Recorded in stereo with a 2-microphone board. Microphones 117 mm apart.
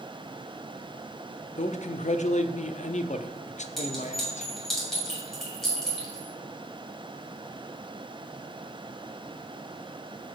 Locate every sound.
1.6 s a man speaking: 80° left, 0.7 m
3.8 s a clink: 5° left (ahead or behind), 5 m